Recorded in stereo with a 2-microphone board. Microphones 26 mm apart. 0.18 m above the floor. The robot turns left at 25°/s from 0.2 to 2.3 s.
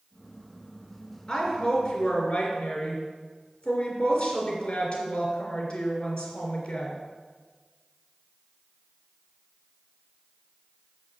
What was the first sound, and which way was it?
A woman speaking, 35° left (ahead or behind).